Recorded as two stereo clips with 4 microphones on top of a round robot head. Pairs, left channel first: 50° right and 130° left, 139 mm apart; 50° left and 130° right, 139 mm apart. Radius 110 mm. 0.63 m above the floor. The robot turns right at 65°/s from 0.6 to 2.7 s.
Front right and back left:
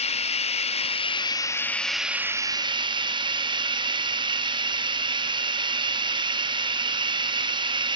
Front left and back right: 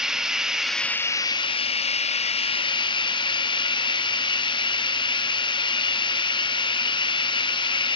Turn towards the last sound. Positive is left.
turn(degrees=90)